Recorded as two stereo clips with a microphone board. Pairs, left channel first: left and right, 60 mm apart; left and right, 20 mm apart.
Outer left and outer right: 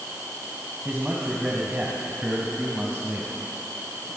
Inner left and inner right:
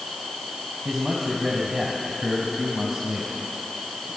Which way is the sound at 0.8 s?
15° right (ahead or behind).